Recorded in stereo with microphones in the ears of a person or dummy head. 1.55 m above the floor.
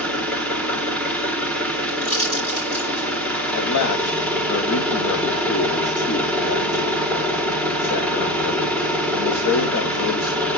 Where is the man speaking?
65° left (ahead or behind), 0.8 m.